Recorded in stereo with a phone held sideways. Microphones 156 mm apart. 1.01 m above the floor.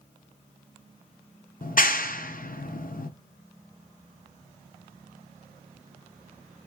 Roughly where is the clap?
Left.